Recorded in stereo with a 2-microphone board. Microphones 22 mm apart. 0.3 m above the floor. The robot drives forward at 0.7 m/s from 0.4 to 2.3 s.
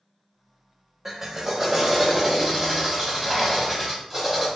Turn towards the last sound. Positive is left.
turn(degrees=-15)  # may be behind; listen again after turning